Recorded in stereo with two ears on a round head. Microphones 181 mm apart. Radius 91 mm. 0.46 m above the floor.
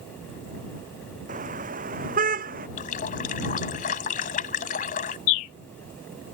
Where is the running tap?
40° left (ahead or behind).